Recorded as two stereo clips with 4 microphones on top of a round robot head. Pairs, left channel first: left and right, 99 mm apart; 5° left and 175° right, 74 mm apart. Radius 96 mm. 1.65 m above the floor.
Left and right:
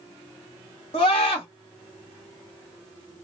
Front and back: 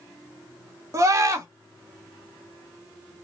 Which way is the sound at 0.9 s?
140° left.